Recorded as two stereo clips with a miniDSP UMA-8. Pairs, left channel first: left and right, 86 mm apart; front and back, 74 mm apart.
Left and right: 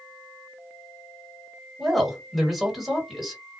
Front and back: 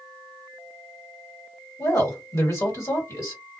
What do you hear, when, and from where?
1.8 s a woman speaking: 5° right, 1.5 m